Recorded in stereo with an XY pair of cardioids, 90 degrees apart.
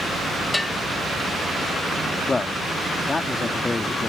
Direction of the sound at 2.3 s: 30° left.